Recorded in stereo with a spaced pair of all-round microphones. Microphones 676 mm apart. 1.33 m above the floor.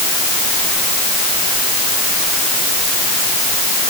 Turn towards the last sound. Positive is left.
No sound to turn to.